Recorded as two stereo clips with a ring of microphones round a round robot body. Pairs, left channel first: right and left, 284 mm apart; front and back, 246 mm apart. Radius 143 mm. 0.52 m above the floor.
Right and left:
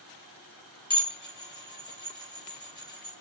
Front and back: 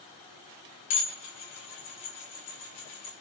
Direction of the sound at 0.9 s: 15° right.